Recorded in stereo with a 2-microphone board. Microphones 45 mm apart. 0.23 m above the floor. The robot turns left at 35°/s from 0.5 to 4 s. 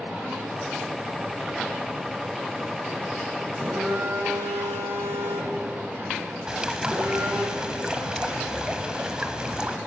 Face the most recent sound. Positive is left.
turn(degrees=-15)  # may be behind; listen again after turning